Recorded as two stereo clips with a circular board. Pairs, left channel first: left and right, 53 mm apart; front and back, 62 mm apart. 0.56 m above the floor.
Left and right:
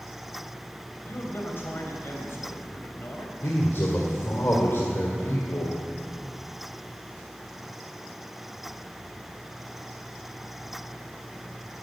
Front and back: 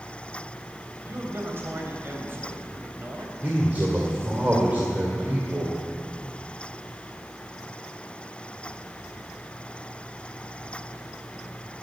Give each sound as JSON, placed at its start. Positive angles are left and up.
{"t": 1.1, "sound": "a man speaking", "azimuth_deg": 130, "distance_m": 3.0}
{"t": 3.4, "sound": "a man speaking", "azimuth_deg": 120, "distance_m": 2.0}